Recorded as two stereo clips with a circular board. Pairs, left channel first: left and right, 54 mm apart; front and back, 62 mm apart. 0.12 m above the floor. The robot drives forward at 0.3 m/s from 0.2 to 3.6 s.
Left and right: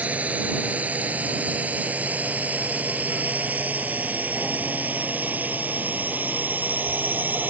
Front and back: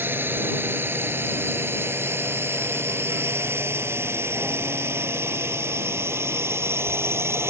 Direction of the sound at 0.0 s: 145° right.